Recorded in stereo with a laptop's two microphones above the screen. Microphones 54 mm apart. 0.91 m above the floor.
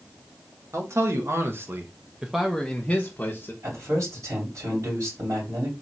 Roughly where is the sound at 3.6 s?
Right.